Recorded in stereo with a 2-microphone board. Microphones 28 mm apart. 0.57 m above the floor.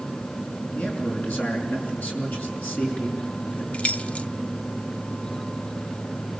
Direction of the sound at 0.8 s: 75° left (ahead or behind).